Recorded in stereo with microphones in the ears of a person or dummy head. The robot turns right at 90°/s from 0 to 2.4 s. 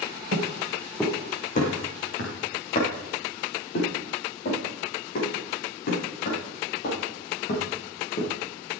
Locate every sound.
0.3 s footsteps: 50° right (ahead or behind), 4 m; by 8.3 s 55° left (ahead or behind), 8 m